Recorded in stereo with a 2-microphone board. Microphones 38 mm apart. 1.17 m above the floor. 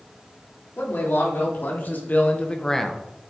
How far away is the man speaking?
About 3.5 m.